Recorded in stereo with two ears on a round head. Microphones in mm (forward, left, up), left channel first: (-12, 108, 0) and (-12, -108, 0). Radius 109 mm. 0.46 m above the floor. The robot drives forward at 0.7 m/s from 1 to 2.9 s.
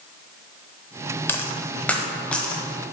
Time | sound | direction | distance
1.3 | a dropped coin | 10° left (ahead or behind) | 0.8 m